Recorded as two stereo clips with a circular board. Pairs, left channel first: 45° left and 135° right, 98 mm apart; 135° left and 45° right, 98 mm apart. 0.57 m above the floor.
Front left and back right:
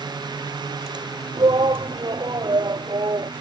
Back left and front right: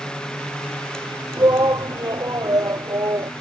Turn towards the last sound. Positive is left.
turn(degrees=-95)